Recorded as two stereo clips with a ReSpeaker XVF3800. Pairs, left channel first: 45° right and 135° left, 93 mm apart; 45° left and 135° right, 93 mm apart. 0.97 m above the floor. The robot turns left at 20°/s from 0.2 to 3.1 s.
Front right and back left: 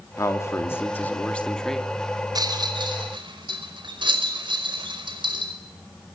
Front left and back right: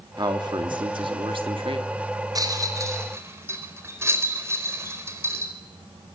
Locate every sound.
0.2 s a man speaking: 100° right, 2.5 m; by 1.9 s 130° right, 2.5 m
2.4 s a rattle: straight behind, 4.5 m; by 5.5 s 165° left, 4.5 m